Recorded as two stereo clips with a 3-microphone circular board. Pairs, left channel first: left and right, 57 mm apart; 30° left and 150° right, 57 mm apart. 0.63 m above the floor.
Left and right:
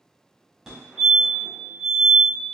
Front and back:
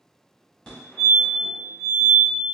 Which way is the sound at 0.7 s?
25° right.